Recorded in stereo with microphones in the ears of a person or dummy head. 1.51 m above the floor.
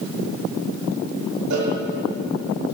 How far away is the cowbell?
About 5 m.